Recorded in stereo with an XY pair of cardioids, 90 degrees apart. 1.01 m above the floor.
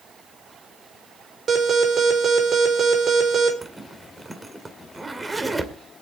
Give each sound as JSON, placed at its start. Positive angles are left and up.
{"t": 1.5, "sound": "an alarm", "azimuth_deg": -50, "distance_m": 4.0}
{"t": 3.6, "sound": "a zipper", "azimuth_deg": -20, "distance_m": 2.0}